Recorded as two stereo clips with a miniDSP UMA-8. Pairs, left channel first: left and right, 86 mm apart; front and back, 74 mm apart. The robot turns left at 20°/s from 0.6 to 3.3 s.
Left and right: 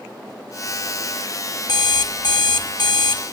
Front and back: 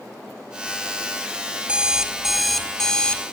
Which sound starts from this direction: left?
An alarm clock, at 1.7 s.